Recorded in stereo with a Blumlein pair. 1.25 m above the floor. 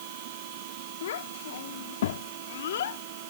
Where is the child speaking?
60° left.